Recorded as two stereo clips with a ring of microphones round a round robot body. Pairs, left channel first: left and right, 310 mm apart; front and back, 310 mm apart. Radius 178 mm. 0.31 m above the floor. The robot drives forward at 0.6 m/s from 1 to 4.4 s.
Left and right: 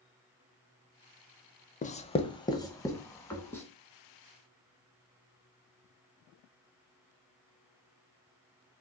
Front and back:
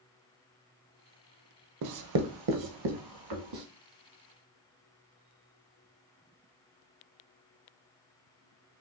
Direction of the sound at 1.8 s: 155° left.